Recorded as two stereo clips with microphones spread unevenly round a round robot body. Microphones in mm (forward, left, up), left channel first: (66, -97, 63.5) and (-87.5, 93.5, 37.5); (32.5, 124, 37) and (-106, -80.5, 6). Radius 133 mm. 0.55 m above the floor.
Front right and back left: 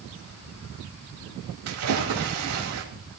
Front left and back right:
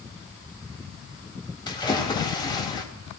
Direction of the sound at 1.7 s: 130° left.